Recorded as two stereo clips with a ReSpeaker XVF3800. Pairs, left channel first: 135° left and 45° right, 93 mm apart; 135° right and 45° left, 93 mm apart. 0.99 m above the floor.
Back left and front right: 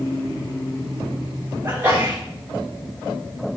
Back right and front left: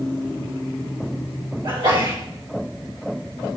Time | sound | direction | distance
1.6 | a sneeze | 20° left | 2.5 m